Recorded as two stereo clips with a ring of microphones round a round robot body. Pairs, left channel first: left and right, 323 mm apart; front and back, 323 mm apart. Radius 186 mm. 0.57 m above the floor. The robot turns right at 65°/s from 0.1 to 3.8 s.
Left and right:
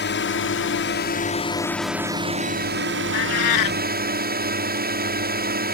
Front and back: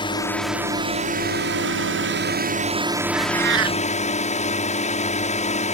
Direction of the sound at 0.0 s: 65° left.